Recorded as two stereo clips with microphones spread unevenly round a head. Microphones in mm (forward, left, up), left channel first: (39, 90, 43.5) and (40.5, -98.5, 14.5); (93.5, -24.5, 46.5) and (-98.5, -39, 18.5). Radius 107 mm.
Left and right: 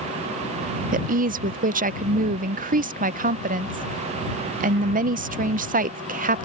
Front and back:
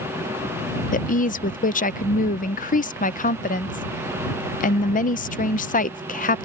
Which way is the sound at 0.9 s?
45° right.